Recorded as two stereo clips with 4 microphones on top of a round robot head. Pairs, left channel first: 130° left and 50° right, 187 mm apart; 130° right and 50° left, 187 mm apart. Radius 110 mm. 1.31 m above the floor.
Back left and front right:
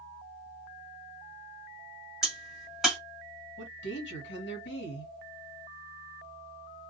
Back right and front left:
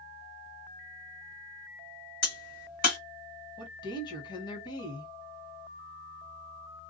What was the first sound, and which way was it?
A crack, 135° right.